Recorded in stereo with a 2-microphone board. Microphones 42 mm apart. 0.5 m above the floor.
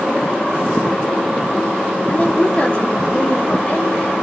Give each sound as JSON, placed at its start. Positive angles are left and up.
{"t": 2.1, "sound": "a woman speaking", "side_deg": 30, "distance_m": 0.9}